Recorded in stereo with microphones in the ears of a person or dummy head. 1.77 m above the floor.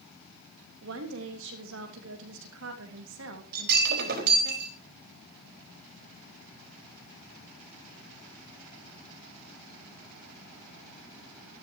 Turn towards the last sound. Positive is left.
turn(degrees=-55)  # may be behind; listen again after turning